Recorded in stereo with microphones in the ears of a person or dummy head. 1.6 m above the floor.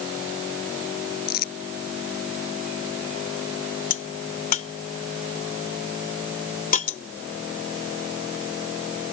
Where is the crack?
40° left (ahead or behind).